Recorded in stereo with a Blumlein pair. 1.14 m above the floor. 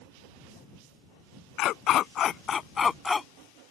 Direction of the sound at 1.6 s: 35° left.